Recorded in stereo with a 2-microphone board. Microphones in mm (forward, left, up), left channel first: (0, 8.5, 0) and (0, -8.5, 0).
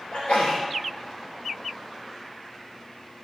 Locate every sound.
0.1 s a sneeze: 65° left (ahead or behind), 3.5 m